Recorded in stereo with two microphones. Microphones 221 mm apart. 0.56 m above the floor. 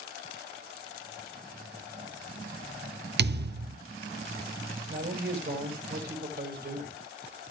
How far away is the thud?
About 0.6 m.